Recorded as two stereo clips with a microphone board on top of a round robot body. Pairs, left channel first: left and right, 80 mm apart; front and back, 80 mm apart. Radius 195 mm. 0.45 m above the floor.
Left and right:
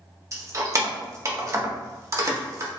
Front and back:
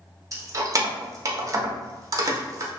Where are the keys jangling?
135° right, 0.7 m.